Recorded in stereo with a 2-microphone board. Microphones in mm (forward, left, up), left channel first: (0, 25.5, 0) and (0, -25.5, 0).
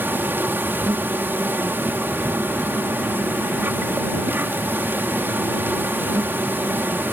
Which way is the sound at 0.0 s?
40° right (ahead or behind).